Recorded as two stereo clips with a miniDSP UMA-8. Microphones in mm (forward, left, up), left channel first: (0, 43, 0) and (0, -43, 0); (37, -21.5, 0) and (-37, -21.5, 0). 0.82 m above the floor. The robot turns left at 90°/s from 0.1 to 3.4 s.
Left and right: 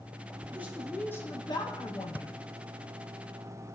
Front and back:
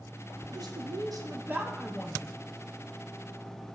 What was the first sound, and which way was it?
A woman speaking, 150° right.